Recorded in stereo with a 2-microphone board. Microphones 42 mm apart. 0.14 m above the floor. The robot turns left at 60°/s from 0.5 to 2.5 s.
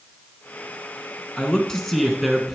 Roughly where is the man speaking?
Left.